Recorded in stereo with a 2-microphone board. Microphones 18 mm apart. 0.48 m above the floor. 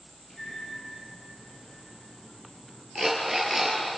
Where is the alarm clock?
15° right (ahead or behind), 4 m.